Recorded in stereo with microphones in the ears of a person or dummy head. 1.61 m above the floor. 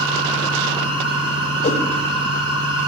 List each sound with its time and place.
0.0 s a machine running: 25° right (ahead or behind), 8.5 m
1.6 s a whoosh: 50° left (ahead or behind), 4.5 m